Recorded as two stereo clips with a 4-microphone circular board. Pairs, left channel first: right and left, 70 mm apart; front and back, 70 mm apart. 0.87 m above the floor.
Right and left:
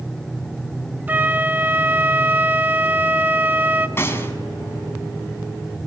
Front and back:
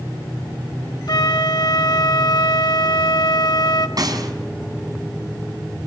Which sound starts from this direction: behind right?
A gunshot, at 4.0 s.